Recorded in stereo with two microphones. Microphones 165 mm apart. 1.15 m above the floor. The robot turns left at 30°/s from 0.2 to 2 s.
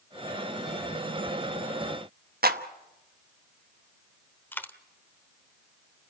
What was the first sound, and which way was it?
A clap, 65° right (ahead or behind).